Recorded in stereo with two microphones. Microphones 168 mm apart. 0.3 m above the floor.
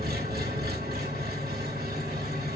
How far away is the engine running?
About 1.9 m.